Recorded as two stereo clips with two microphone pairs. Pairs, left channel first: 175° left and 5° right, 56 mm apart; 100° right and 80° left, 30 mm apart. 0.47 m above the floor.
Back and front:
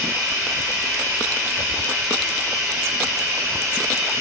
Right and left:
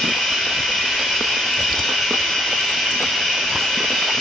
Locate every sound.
0.0 s running water: 35° right, 3.5 m